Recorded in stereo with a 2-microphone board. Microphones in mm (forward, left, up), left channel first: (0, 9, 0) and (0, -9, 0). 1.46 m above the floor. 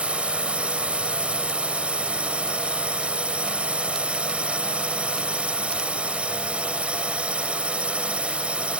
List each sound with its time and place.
0.0 s a drone: 80° right